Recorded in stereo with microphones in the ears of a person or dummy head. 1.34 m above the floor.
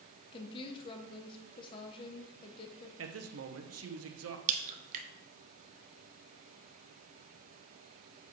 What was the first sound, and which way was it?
A woman speaking, 35° left (ahead or behind).